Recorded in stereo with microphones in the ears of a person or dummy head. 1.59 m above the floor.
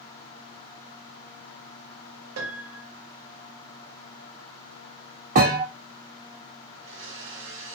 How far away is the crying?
I don't hear crying.